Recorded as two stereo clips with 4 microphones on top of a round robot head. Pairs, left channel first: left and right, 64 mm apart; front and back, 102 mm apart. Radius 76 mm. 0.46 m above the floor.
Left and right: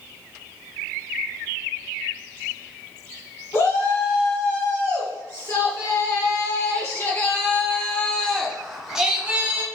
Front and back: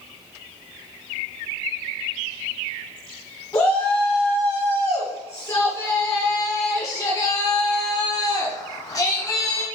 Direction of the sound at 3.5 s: 65° left.